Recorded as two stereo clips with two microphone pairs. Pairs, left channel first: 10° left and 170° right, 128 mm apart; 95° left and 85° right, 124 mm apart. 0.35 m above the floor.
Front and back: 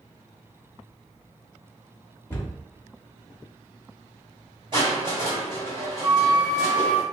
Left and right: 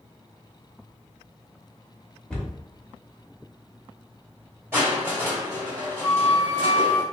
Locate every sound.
2.3 s a cupboard door: 25° left, 0.8 m
4.7 s crushing: 150° right, 1.8 m
6.0 s a flute: 125° left, 0.8 m